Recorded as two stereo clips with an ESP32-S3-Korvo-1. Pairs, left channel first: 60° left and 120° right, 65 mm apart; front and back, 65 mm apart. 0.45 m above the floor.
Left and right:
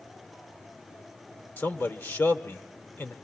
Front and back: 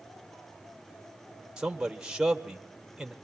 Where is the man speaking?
105° left, 1.5 m.